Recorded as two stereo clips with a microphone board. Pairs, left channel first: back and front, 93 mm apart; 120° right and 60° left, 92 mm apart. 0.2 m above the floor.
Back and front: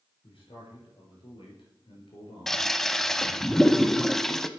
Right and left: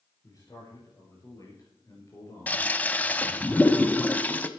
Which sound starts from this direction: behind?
A man speaking, at 0.2 s.